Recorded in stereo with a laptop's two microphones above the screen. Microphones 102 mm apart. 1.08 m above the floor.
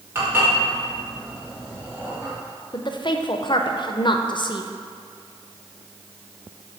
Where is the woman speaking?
50° left (ahead or behind), 0.5 m.